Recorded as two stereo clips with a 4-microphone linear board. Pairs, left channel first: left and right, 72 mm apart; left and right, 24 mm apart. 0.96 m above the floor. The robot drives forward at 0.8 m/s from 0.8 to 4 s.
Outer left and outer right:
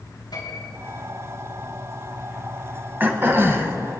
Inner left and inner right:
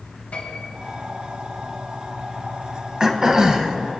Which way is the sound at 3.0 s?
30° right (ahead or behind).